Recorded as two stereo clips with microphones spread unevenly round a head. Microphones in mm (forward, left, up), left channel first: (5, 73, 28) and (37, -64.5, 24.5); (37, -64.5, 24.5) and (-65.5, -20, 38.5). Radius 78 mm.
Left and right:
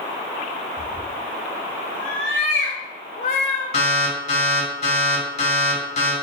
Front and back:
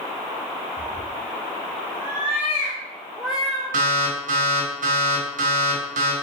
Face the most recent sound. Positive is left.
turn(degrees=155)